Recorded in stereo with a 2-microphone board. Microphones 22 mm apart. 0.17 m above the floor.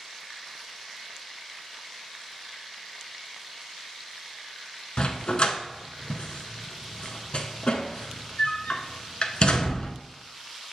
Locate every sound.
5.0 s a dog barking: 55° left (ahead or behind), 0.5 m